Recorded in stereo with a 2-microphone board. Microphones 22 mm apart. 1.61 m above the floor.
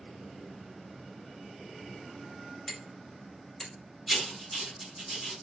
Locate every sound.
2.7 s hammering: 30° left (ahead or behind), 1.1 m
4.1 s writing: 5° left (ahead or behind), 1.1 m